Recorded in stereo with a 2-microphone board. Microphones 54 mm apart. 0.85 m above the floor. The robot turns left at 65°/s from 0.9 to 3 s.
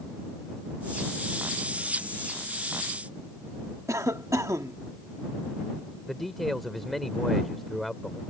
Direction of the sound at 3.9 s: 70° right (ahead or behind).